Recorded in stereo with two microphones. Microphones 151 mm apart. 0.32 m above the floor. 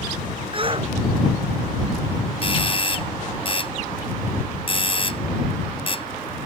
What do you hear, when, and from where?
0.5 s a shout: 35° right (ahead or behind)
2.4 s a doorbell: 40° left (ahead or behind)